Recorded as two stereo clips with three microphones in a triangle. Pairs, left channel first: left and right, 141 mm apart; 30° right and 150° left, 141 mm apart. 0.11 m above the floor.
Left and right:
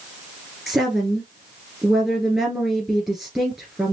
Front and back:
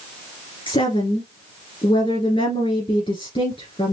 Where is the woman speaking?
15° right, 1.8 m.